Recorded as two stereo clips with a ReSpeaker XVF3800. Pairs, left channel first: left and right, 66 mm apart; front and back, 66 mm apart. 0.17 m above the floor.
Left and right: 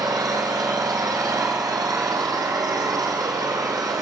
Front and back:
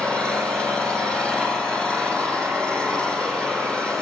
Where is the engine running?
75° right, 5.5 m.